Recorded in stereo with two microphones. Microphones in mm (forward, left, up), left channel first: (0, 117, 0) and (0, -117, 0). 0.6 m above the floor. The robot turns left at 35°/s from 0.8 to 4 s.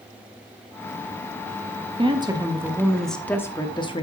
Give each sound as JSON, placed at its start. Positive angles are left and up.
{"t": 2.0, "sound": "a woman speaking", "azimuth_deg": -145, "distance_m": 1.1}